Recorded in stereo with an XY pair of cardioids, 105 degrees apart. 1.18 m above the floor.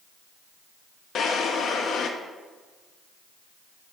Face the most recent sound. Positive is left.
turn(degrees=60)